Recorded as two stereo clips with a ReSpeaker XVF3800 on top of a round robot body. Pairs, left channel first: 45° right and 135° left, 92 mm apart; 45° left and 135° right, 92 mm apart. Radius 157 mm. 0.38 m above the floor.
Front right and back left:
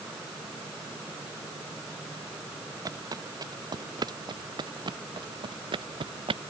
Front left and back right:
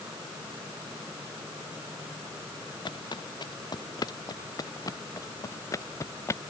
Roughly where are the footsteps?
Left.